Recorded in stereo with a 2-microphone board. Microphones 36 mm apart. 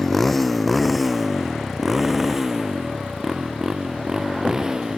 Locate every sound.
0.0 s a motorcycle: 5° left (ahead or behind); by 5.0 s 20° right (ahead or behind)